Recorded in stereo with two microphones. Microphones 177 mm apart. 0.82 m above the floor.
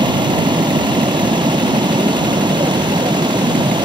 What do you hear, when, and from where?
0.0 s running water: 25° right (ahead or behind)